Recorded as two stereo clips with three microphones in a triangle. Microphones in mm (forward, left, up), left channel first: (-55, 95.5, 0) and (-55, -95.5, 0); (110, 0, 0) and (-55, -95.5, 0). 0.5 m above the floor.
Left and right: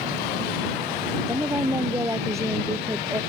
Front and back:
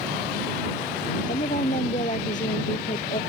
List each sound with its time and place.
1.3 s a woman speaking: 15° right